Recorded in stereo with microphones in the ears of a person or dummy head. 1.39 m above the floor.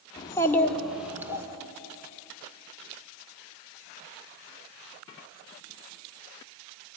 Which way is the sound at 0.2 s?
25° left (ahead or behind).